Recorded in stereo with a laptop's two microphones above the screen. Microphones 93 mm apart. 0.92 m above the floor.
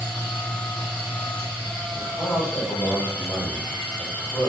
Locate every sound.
0.0 s a machine running: 15° left (ahead or behind), 0.9 m
1.9 s a man speaking: 55° left (ahead or behind), 1.5 m